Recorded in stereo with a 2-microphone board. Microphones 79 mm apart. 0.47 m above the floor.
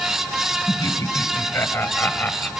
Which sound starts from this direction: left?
Laughter, at 0.7 s.